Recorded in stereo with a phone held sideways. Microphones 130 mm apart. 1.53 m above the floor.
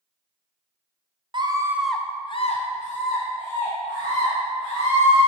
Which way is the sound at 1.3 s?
35° right (ahead or behind).